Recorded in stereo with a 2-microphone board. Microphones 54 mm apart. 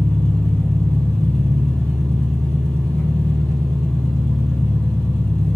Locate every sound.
0.0 s an engine running: 50° left (ahead or behind), 1.4 m